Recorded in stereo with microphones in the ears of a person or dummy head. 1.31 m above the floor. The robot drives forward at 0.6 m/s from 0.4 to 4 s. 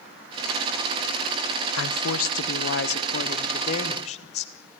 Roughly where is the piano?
No piano in this recording.